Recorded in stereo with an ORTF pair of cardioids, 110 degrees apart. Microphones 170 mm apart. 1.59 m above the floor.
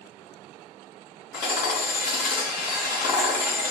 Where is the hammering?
65° left, 1.2 m.